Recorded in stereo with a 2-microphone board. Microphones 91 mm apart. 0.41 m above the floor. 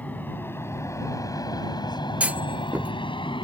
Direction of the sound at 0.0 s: 20° left (ahead or behind).